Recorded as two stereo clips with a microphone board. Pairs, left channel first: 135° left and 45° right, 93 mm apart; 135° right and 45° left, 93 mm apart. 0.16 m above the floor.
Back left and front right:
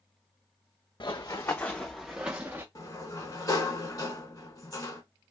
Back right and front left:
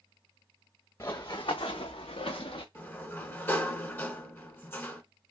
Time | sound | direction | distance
1.0 | running footsteps | 175° left | 0.7 m
2.8 | a sliding door | 170° left | 0.7 m